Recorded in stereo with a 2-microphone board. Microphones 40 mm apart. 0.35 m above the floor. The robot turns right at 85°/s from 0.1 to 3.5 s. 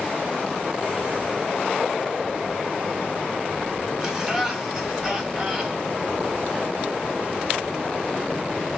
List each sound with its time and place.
4.0 s laughter: 10° right (ahead or behind), 3 m